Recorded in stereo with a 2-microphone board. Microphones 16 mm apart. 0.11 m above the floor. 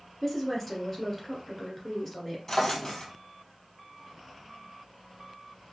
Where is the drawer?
35° left (ahead or behind), 1.3 m.